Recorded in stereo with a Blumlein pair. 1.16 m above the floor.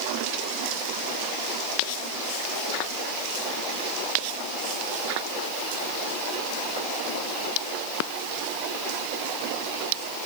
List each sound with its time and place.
Only background noise.